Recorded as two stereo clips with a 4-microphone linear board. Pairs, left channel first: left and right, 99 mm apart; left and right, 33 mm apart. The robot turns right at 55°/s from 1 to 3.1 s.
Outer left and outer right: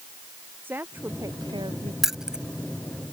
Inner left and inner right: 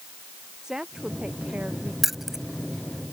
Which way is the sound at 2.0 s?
5° right (ahead or behind).